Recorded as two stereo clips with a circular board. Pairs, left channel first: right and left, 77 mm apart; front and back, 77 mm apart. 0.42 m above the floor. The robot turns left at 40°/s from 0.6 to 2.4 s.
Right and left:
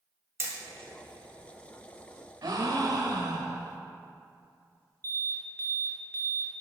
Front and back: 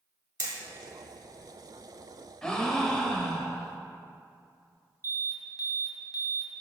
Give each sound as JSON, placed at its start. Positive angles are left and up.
{"t": 0.4, "sound": "hammering", "azimuth_deg": 145, "distance_m": 1.2}
{"t": 2.4, "sound": "a gasp", "azimuth_deg": 80, "distance_m": 0.8}
{"t": 5.0, "sound": "an alarm", "azimuth_deg": -35, "distance_m": 1.6}